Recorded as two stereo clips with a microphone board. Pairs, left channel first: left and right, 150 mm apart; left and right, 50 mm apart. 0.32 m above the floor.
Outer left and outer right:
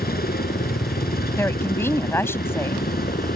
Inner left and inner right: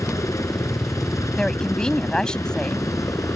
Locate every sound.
0.0 s a helicopter: 70° left (ahead or behind)
1.4 s a woman speaking: 15° left (ahead or behind)